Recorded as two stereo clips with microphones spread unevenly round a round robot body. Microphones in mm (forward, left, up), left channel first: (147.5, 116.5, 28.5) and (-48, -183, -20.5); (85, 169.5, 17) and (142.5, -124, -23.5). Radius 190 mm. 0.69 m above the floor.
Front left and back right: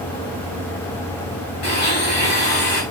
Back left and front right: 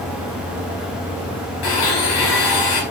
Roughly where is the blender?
Behind left.